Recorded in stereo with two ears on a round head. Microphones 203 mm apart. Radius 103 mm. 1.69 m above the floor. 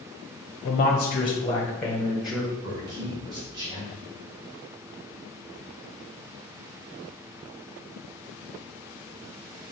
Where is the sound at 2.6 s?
20° right (ahead or behind), 1.4 m.